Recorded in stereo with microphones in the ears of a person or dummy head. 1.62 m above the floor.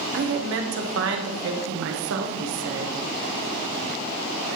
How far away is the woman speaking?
About 1.0 m.